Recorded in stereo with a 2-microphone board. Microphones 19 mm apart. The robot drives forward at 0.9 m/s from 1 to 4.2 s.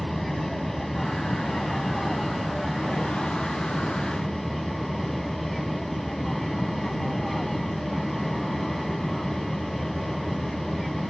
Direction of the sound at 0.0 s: 10° left (ahead or behind).